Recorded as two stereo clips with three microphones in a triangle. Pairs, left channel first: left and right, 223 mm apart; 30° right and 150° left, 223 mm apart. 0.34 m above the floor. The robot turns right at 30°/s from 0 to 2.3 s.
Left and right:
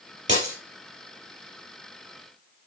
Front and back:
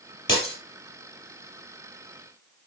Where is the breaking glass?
55° right, 4 m; by 0.6 s 50° right, 4 m.